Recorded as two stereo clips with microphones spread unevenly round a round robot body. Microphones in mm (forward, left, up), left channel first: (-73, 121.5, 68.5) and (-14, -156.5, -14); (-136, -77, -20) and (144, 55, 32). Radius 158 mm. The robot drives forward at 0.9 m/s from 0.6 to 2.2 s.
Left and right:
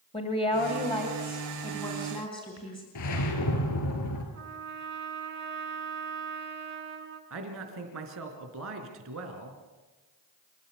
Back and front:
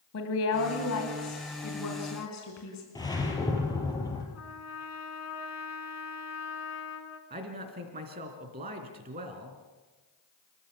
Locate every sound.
0.1 s a woman speaking: straight behind, 2.5 m
3.0 s a whoosh: 125° left, 3.5 m
4.3 s a trumpet: 115° right, 3 m
7.3 s a man speaking: 40° right, 3.5 m